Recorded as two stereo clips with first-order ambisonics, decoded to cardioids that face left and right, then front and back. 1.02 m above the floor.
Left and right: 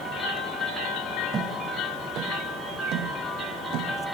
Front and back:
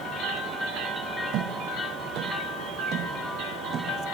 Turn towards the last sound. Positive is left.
turn(degrees=-120)